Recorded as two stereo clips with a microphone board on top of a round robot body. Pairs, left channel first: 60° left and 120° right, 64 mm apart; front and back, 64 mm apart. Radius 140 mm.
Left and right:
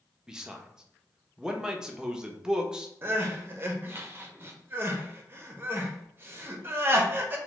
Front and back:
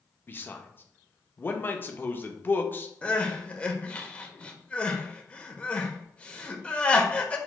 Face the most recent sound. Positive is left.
turn(degrees=-70)